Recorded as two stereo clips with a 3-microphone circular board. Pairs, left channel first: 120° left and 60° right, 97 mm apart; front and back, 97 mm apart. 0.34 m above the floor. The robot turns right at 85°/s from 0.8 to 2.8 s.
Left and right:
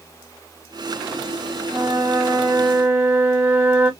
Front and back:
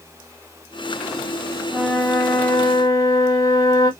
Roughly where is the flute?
Right.